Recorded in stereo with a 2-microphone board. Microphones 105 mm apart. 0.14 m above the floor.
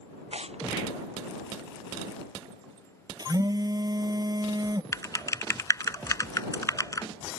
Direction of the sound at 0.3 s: 75° right (ahead or behind).